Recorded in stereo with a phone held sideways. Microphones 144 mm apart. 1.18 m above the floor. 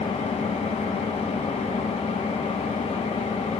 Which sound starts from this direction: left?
An engine running, at 0.0 s.